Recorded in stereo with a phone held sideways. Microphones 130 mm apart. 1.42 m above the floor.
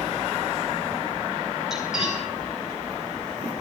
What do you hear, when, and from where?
1.7 s cutlery clinking: 5° right (ahead or behind), 9 m